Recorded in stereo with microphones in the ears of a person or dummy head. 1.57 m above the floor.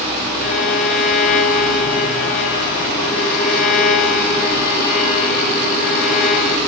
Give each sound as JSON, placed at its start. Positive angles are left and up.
{"t": 0.4, "sound": "a violin", "side_deg": 45, "distance_m": 1.5}